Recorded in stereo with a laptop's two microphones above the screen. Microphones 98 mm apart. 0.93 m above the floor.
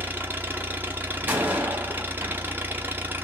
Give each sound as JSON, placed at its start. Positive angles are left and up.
{"t": 0.0, "sound": "an engine running", "side_deg": -20, "distance_m": 0.8}
{"t": 1.2, "sound": "a door slam", "side_deg": -20, "distance_m": 1.3}